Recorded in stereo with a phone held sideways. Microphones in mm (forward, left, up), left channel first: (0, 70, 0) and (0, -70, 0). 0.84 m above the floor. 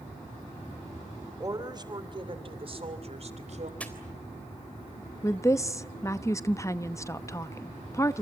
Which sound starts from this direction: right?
A woman speaking, at 1.4 s.